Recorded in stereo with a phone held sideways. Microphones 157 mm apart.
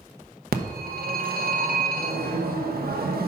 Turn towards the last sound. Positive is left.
turn(degrees=-80)